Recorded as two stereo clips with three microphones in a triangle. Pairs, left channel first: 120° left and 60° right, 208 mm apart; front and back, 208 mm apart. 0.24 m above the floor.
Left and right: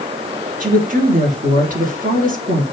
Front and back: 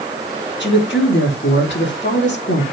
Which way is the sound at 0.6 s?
15° right.